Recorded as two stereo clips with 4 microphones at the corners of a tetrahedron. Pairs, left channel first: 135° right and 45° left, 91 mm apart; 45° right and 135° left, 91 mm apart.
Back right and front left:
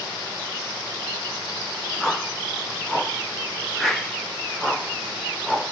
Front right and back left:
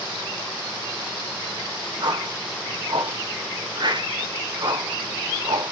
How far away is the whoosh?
About 0.6 m.